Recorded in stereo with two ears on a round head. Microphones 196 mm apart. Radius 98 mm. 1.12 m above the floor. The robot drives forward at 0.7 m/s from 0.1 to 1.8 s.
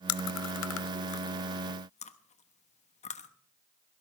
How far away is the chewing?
About 0.6 m.